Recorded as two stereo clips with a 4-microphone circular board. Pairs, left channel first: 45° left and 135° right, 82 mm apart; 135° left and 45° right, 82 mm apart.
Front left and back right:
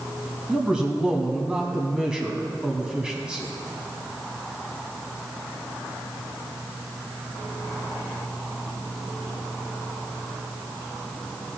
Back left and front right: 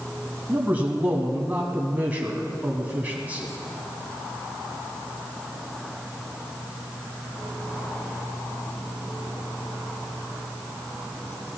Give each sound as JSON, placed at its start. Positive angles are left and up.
{"t": 0.5, "sound": "a man speaking", "azimuth_deg": -75, "distance_m": 1.2}